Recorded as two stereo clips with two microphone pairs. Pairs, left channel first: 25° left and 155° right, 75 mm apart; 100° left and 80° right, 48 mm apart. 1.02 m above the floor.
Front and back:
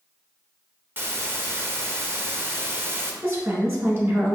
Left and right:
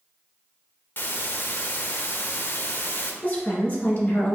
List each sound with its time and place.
1.0 s a hiss: 145° left, 0.6 m
3.2 s a woman speaking: 150° left, 1.4 m